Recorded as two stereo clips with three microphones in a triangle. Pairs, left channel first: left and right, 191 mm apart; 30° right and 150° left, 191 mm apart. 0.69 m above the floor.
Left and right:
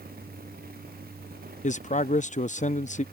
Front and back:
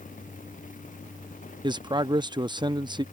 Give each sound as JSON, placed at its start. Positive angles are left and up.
{"t": 1.6, "sound": "a man speaking", "azimuth_deg": 100}